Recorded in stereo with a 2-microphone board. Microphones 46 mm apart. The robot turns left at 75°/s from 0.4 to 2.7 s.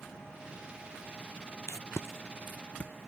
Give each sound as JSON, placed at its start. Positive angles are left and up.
{"t": 1.7, "sound": "tape being pulled", "side_deg": 75}